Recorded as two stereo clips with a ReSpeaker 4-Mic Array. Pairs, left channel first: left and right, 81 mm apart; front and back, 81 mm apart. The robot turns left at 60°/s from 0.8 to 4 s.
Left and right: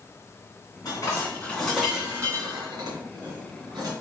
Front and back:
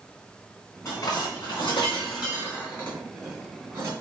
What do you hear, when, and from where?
0.8 s dishes clattering: 55° left, 3 m; by 3.9 s 130° right, 3 m